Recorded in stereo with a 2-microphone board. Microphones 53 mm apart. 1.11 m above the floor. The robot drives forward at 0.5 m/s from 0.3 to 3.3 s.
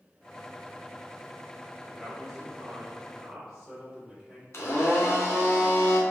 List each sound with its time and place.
1.9 s a man speaking: 5° left (ahead or behind), 1.1 m; by 4.4 s centre (ahead or behind), 1.8 m
4.5 s a blender: 55° left (ahead or behind), 0.8 m